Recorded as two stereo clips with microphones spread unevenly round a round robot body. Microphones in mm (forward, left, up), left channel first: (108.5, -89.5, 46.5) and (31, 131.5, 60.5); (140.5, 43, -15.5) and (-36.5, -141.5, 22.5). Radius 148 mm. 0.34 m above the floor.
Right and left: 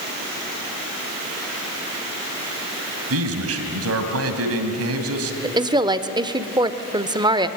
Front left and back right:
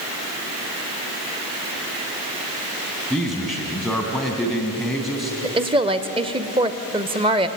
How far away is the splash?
I don't hear a splash.